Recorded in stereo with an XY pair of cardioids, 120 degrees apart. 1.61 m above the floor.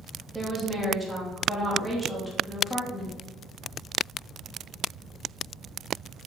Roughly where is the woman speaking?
Ahead.